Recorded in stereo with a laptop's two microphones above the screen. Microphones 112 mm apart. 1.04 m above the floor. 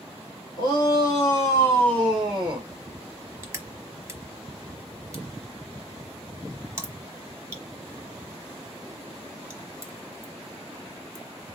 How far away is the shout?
About 1.6 m.